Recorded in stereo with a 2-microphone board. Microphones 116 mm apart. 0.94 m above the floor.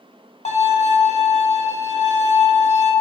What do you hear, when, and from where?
0.5 s a violin: 80° left, 1.1 m